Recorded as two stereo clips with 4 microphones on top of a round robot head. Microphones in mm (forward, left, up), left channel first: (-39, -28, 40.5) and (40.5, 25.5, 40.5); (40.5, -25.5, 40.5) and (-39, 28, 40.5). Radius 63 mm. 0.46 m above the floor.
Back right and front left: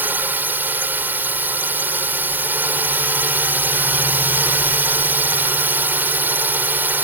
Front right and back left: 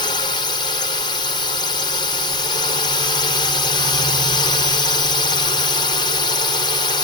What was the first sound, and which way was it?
A drone, 30° right.